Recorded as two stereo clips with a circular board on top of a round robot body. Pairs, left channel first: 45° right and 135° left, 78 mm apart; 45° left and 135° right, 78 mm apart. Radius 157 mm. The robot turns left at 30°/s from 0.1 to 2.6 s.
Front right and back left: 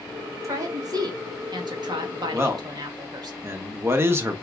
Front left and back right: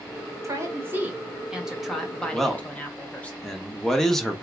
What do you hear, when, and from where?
0.4 s a woman speaking: straight behind, 2 m; by 3.3 s 115° left, 2 m
2.3 s a man speaking: 135° left, 1.2 m; by 4.4 s 125° left, 1.2 m